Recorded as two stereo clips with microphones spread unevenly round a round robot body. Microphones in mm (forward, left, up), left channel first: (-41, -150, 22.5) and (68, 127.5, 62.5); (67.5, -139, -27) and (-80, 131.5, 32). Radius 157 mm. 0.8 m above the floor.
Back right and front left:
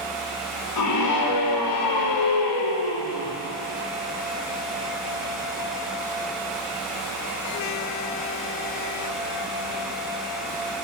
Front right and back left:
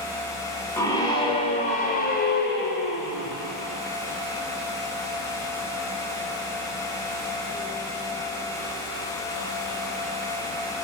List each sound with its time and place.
0.8 s a scream: 145° right, 2.5 m; by 3.4 s 110° right, 3 m